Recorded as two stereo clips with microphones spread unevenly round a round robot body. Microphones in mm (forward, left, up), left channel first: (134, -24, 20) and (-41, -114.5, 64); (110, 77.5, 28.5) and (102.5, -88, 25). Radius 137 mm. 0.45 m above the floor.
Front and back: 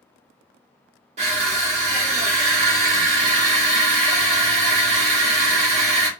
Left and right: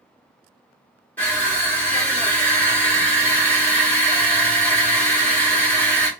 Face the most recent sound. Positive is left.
turn(degrees=160)